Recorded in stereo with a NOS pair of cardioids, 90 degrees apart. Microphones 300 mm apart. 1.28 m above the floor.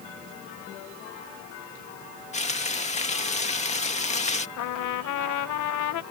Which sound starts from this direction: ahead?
Frying, at 2.3 s.